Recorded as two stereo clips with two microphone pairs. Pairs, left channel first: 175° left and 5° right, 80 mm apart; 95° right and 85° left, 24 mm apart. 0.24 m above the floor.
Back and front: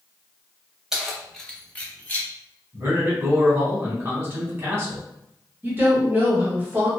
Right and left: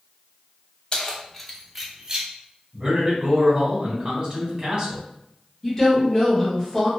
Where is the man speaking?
45° left, 1.4 m.